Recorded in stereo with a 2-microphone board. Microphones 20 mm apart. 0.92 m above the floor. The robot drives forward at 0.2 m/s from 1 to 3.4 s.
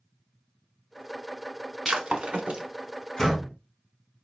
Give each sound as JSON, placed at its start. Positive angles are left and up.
{"t": 1.9, "sound": "breaking glass", "side_deg": -75, "distance_m": 1.4}
{"t": 3.2, "sound": "a door slam", "side_deg": 20, "distance_m": 3.5}